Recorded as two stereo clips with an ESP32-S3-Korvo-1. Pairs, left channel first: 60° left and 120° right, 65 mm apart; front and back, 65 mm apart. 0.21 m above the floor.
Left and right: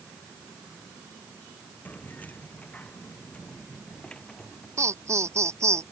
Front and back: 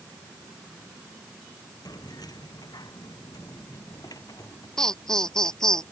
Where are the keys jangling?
Straight ahead; by 4.7 s 20° right.